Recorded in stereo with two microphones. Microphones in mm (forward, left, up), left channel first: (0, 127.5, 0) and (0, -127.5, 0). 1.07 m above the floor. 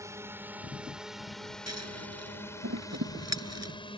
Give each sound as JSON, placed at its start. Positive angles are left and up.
{"t": 0.0, "sound": "a drone", "side_deg": -10}
{"t": 1.7, "sound": "scissors", "side_deg": -85}